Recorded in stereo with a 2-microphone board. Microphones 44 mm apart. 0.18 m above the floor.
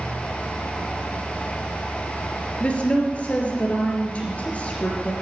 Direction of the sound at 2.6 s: 30° left (ahead or behind).